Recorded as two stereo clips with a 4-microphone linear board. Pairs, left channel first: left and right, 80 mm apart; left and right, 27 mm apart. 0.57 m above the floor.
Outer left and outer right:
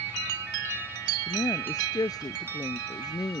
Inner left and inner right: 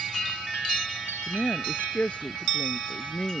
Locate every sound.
1.3 s a woman speaking: 55° left (ahead or behind)